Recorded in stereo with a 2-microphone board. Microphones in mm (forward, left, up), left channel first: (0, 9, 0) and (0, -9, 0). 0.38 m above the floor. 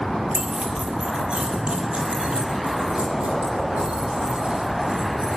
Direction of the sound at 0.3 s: 80° right.